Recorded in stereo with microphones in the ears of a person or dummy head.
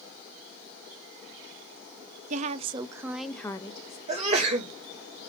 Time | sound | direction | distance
2.3 | a woman speaking | 40° right (ahead or behind) | 0.7 m
4.1 | a sneeze | 35° right (ahead or behind) | 1.9 m